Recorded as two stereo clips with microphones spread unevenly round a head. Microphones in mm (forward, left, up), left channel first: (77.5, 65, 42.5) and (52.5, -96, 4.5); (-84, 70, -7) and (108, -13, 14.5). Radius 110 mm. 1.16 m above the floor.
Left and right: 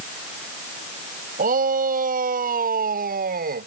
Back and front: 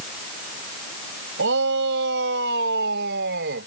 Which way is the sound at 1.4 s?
65° right.